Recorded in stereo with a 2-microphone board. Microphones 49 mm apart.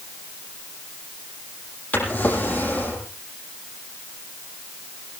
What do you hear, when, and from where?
1.9 s a drawer: 30° left (ahead or behind), 7 m